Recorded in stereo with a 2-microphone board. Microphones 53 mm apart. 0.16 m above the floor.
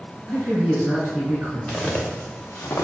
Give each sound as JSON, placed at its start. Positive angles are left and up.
{"t": 0.3, "sound": "a man speaking", "side_deg": -30, "distance_m": 1.8}
{"t": 1.7, "sound": "footsteps", "side_deg": 25, "distance_m": 1.1}